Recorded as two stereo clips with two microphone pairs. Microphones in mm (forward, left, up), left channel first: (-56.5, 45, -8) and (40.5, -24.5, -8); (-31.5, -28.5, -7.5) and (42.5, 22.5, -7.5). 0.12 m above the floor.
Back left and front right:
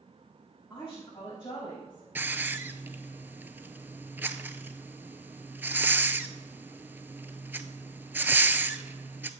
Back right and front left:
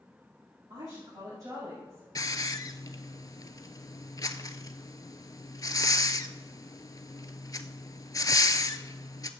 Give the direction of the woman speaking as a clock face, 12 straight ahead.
10 o'clock.